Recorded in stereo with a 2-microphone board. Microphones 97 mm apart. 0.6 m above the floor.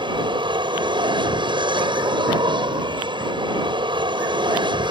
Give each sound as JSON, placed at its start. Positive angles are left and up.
{"t": 0.0, "sound": "an aircraft", "side_deg": -55}